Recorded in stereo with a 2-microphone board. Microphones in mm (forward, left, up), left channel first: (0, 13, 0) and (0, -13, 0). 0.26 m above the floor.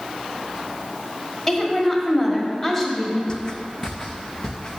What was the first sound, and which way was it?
A woman speaking, 15° left (ahead or behind).